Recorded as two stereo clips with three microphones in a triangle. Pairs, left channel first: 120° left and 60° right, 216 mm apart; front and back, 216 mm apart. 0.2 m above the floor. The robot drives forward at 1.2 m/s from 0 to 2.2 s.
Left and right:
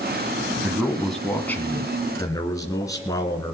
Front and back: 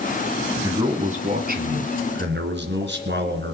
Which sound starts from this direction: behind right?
A man speaking, at 0.6 s.